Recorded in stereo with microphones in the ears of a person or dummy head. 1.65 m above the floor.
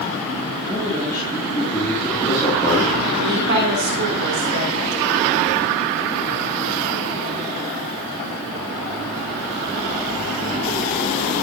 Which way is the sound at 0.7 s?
25° left (ahead or behind).